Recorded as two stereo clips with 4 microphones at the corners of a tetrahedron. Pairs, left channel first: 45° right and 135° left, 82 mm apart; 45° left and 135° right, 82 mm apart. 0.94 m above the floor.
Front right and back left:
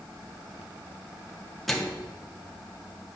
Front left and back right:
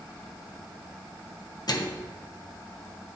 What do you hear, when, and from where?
1.7 s a microwave: 45° left, 1.0 m